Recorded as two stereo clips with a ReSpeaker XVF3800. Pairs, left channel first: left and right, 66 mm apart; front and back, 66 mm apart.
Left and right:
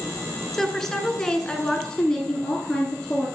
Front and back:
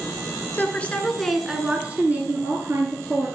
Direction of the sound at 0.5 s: 5° left.